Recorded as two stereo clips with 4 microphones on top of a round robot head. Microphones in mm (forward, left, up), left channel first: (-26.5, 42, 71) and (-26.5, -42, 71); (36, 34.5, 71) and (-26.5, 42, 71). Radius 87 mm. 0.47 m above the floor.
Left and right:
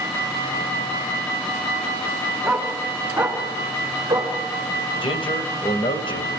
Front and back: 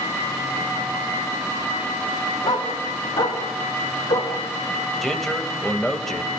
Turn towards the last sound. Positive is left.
turn(degrees=80)